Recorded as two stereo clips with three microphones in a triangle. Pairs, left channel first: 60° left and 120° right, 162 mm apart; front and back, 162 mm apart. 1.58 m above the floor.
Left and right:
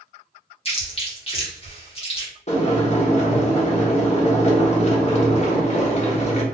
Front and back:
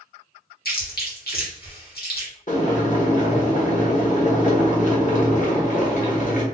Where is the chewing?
10° left, 1.8 m.